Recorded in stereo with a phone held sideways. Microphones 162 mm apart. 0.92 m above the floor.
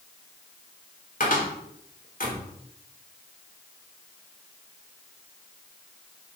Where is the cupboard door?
60° left (ahead or behind), 3.5 m.